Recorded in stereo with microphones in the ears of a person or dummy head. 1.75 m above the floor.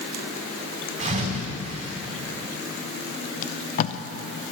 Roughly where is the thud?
Right.